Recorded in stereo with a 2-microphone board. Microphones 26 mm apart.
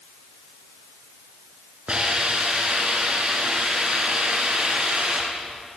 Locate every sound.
1.9 s a hiss: 35° right (ahead or behind), 8.5 m